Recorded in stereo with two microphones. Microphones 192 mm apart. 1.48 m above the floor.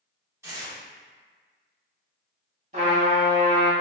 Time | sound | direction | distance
0.4 | tearing paper | 15° right (ahead or behind) | 1.3 m
2.7 | a trumpet | 40° right (ahead or behind) | 1.3 m